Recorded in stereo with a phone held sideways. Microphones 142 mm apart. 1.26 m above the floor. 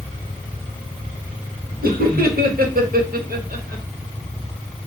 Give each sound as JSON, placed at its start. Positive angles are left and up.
{"t": 1.8, "sound": "laughter", "side_deg": -85, "distance_m": 1.2}